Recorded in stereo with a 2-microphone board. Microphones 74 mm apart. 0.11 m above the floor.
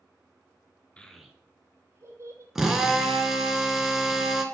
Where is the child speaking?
15° left (ahead or behind), 0.7 m; by 2.5 s 45° right (ahead or behind), 1.5 m.